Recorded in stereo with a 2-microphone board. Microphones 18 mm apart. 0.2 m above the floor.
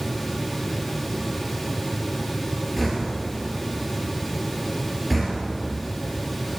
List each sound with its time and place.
2.8 s knocking: centre (ahead or behind), 2.5 m